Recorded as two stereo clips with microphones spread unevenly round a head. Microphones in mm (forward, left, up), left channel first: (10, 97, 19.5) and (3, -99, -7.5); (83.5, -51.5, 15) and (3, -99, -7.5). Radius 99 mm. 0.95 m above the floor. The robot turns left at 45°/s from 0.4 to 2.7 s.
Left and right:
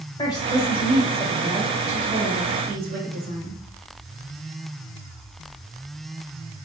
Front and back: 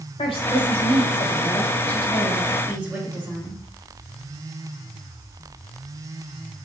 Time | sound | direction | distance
0.2 | a woman speaking | 15° left | 1.2 m